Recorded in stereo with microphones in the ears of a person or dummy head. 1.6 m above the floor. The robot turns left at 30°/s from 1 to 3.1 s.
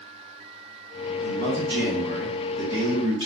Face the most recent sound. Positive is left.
turn(degrees=-150)